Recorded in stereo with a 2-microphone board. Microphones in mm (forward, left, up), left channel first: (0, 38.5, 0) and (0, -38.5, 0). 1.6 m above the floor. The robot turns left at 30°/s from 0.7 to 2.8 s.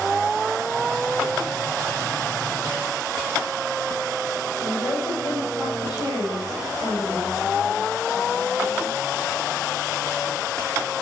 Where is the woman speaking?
60° left (ahead or behind), 7.5 m.